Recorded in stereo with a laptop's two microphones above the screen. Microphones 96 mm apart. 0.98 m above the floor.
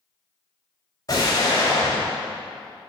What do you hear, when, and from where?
1.1 s an explosion: 40° left (ahead or behind), 2.5 m